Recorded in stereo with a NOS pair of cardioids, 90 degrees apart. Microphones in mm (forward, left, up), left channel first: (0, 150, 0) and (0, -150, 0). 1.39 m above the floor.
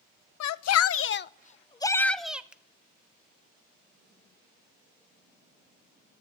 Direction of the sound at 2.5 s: 5° right.